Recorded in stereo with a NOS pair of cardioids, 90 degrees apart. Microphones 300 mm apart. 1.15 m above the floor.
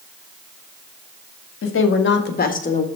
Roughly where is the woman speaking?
Ahead left.